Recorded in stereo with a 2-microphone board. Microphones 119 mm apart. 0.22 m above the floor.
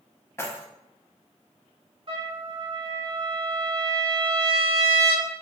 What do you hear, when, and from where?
0.4 s keys jangling: 20° left (ahead or behind), 0.7 m
2.1 s a trumpet: 50° right (ahead or behind), 1.0 m